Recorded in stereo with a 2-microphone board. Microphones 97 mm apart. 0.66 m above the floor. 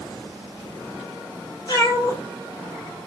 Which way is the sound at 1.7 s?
45° left (ahead or behind).